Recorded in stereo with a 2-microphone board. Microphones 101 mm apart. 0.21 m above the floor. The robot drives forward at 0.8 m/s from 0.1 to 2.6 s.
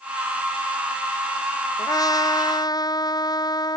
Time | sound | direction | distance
1.8 | a trumpet | 35° left (ahead or behind) | ?